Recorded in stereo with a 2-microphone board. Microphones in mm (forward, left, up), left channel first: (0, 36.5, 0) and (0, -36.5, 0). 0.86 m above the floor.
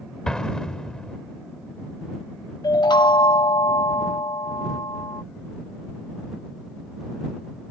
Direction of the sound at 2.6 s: 85° left.